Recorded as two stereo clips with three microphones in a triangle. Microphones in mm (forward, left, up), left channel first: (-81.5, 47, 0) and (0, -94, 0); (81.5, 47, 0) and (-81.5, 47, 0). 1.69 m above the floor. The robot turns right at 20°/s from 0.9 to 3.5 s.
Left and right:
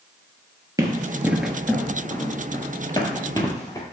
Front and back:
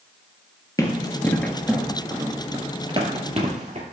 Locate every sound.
0.8 s running footsteps: 30° right, 1.8 m; by 3.8 s 175° left, 2.5 m